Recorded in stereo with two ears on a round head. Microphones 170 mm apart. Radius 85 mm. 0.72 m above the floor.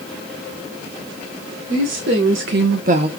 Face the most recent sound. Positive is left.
turn(degrees=-25)  # may be behind; listen again after turning